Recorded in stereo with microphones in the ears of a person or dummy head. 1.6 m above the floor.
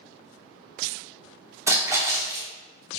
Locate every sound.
1.7 s a splash: 10° right (ahead or behind), 0.8 m